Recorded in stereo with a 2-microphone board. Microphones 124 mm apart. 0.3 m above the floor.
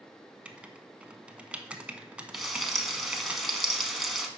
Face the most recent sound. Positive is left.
turn(degrees=0)  # may be behind; listen again after turning